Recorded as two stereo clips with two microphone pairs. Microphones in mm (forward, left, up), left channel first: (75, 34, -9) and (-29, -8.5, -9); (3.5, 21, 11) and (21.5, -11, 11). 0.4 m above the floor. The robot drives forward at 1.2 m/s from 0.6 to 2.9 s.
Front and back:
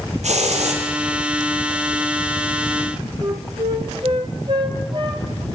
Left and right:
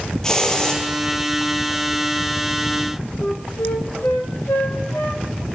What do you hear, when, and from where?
0.2 s a hiss: 170° right, 4.5 m
3.2 s a flute: 155° left, 2.0 m